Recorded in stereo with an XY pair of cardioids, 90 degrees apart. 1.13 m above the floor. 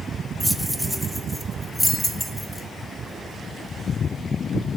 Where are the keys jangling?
5° right, 0.7 m.